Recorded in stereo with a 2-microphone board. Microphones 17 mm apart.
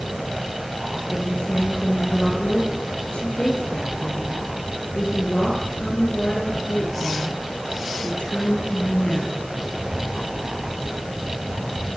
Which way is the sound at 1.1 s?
80° left.